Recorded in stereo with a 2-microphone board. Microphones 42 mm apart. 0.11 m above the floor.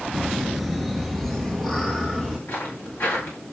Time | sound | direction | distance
0.1 | laughter | 5° right (ahead or behind) | 1.3 m
2.5 | footsteps | 75° left (ahead or behind) | 7.5 m